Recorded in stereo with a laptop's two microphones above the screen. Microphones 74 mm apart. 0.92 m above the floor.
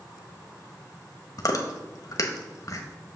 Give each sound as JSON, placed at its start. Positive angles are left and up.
{"t": 1.4, "sound": "chewing", "side_deg": 50, "distance_m": 1.0}